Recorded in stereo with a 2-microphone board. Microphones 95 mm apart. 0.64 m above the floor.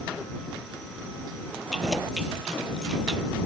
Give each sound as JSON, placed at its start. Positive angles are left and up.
{"t": 1.7, "sound": "keys jangling", "side_deg": 0}